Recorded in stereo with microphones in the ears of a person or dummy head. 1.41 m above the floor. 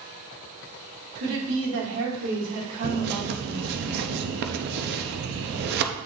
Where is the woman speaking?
75° right (ahead or behind), 3 m.